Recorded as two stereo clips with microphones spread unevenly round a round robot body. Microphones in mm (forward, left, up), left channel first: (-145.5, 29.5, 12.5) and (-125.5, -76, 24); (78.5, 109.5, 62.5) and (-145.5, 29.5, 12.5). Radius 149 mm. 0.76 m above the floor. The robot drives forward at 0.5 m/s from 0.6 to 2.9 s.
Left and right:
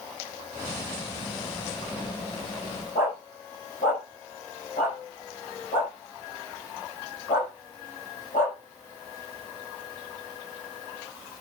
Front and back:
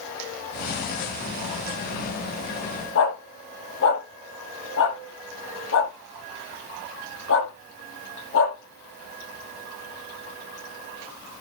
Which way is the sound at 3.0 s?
50° left.